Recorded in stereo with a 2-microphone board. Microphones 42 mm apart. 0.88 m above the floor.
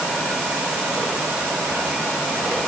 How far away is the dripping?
No dripping in this recording.